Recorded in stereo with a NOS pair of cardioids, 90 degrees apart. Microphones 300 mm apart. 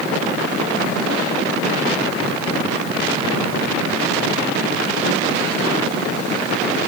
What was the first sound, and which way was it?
Only background noise.